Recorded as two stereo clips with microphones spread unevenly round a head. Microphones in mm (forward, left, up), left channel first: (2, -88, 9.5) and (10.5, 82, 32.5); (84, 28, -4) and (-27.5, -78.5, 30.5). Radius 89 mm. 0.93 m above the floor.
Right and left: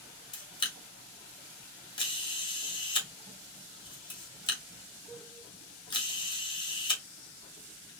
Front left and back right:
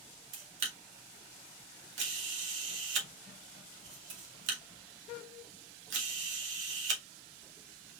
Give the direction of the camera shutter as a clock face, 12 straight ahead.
5 o'clock.